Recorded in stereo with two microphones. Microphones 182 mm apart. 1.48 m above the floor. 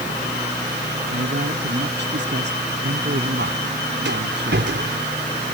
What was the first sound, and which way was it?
A man speaking, 75° right (ahead or behind).